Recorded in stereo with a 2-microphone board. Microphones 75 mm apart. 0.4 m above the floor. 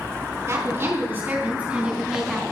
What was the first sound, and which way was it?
A woman speaking, 35° right (ahead or behind).